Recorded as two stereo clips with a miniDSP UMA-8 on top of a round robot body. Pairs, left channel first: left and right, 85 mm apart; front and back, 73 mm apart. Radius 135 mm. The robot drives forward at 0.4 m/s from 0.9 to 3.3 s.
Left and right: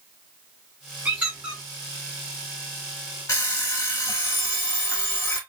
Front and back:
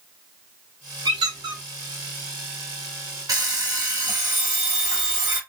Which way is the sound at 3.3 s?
140° left.